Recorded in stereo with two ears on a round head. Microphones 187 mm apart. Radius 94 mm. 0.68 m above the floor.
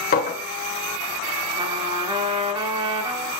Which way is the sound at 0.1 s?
45° left (ahead or behind).